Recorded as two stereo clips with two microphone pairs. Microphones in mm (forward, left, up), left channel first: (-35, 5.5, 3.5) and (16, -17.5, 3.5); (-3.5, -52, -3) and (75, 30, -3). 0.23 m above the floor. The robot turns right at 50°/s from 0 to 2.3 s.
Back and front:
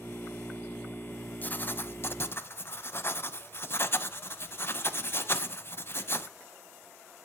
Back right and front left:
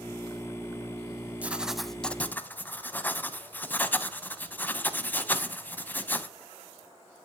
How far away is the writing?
About 0.5 m.